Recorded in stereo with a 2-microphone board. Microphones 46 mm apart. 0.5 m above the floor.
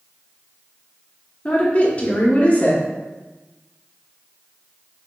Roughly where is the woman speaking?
Left.